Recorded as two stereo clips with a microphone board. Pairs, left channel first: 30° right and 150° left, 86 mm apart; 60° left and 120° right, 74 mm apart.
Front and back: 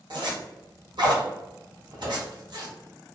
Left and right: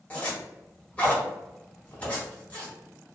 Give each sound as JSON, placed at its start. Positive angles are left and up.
{"t": 0.1, "sound": "a zipper", "azimuth_deg": 130, "distance_m": 1.0}